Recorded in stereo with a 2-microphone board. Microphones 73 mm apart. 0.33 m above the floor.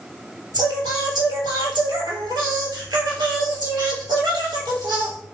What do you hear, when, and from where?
0.5 s singing: 85° right, 1.5 m